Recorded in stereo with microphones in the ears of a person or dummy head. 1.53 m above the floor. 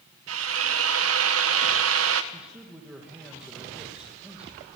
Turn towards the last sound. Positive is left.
turn(degrees=-5)  # may be behind; listen again after turning